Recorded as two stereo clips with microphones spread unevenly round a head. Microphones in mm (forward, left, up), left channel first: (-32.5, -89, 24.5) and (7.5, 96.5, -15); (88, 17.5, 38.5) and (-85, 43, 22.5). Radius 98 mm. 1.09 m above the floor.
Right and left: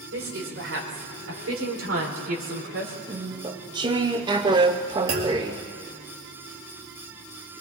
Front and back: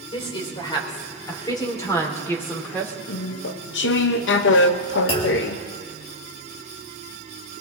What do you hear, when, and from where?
0.1 s a woman speaking: 50° left, 4.5 m; by 3.0 s 75° left, 3.5 m
3.1 s chewing: 10° left, 0.7 m
5.1 s a clunk: 50° left, 2.5 m